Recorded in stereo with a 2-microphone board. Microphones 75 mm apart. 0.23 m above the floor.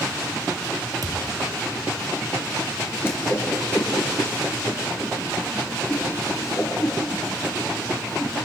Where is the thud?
60° right (ahead or behind), 2.5 m.